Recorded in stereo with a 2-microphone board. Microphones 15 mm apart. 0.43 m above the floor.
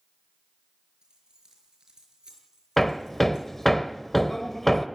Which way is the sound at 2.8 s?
15° left (ahead or behind).